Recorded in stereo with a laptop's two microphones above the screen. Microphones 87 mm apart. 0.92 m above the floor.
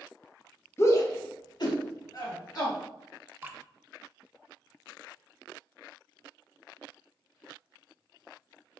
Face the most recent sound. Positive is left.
turn(degrees=-20)  # may be behind; listen again after turning